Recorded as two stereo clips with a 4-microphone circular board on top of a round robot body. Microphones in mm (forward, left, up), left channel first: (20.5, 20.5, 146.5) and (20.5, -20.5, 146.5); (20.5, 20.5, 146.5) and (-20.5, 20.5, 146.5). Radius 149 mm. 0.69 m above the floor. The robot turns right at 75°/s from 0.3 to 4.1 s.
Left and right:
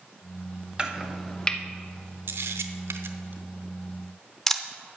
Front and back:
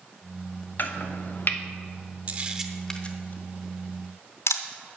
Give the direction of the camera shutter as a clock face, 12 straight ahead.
4 o'clock.